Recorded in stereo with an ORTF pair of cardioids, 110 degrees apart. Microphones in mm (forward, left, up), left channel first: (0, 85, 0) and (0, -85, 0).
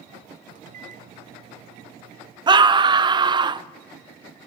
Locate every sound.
0.6 s a microwave: 50° right, 0.7 m
2.5 s a scream: 30° right, 0.7 m